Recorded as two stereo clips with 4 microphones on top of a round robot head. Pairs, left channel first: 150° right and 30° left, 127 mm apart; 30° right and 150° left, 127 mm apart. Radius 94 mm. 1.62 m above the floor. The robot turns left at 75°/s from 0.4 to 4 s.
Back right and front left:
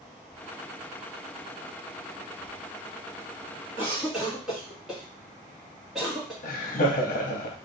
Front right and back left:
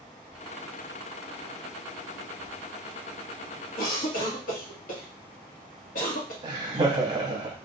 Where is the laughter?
155° right, 0.7 m.